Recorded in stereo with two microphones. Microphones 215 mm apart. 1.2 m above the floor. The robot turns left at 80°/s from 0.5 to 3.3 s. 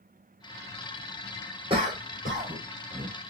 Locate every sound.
1.7 s a cough: 25° right (ahead or behind), 1.5 m; by 3.1 s 40° right (ahead or behind), 1.5 m